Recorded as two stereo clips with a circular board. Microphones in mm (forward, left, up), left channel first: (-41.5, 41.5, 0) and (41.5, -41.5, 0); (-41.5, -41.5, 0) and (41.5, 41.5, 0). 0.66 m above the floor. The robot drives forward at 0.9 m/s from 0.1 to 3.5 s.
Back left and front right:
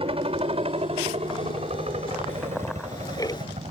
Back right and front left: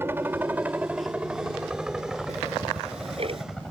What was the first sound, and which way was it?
A helicopter, 25° right.